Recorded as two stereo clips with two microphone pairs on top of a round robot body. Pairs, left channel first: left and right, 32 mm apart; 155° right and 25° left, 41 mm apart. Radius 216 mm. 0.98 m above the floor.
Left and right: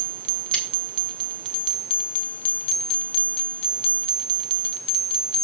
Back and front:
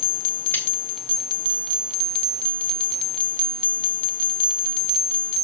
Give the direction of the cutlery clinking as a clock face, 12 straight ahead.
6 o'clock.